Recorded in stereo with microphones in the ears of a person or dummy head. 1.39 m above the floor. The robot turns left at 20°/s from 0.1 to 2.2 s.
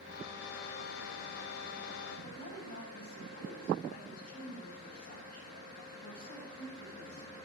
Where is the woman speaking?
55° left (ahead or behind), 7 m.